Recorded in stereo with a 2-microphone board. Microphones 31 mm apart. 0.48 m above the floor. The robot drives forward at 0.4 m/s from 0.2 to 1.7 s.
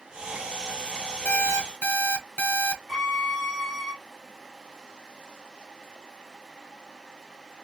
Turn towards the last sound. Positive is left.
turn(degrees=0)  # may be behind; listen again after turning